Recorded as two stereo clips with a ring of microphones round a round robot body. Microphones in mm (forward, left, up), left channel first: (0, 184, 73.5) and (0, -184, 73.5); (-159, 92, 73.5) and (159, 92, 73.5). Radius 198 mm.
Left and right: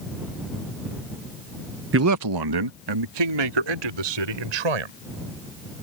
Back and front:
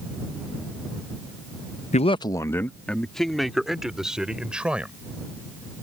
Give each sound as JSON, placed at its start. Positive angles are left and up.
{"t": 1.9, "sound": "a man speaking", "azimuth_deg": -125}